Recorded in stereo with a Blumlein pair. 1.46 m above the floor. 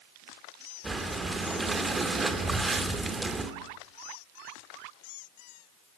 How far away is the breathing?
About 2.5 m.